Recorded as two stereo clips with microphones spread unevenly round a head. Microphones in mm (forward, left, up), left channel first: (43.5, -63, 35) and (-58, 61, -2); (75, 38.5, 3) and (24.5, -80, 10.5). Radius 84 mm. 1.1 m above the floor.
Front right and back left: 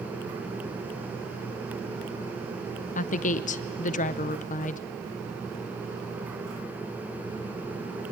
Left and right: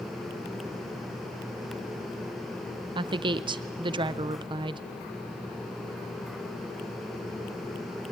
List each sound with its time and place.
3.0 s a woman speaking: 80° right, 0.5 m